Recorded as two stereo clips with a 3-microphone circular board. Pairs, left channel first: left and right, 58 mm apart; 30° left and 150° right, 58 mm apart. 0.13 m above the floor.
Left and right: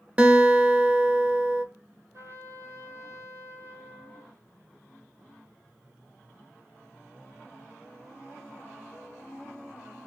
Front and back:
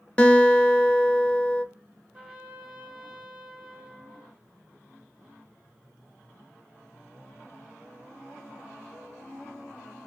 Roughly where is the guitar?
Ahead right.